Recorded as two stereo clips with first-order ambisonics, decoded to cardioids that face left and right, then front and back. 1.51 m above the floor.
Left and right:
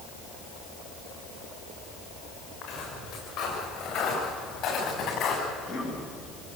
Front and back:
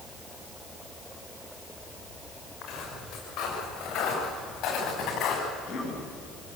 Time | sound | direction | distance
2.6 | footsteps | 55° left | 9 m
5.5 | a cough | 55° left | 9 m